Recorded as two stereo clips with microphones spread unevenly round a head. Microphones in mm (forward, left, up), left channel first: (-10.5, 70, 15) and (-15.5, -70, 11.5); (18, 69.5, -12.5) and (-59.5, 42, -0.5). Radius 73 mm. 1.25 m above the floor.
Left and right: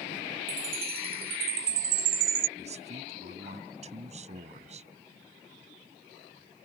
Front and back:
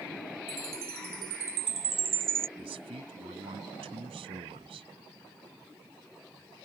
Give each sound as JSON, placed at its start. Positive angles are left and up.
{"t": 0.5, "sound": "a chime", "azimuth_deg": -115}
{"t": 2.6, "sound": "a man speaking", "azimuth_deg": -135}